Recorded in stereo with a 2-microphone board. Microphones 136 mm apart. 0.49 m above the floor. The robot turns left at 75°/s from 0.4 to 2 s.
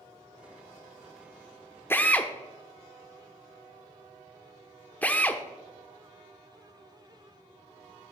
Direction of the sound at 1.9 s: 15° left (ahead or behind).